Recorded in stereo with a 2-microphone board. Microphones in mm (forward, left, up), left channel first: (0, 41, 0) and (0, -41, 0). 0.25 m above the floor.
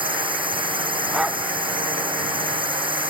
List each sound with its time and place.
0.0 s a drone: 80° right
1.1 s a dog barking: 5° right (ahead or behind)